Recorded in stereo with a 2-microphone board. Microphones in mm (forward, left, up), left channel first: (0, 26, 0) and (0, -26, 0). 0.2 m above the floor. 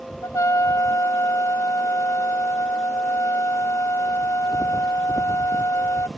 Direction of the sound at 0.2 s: 80° left.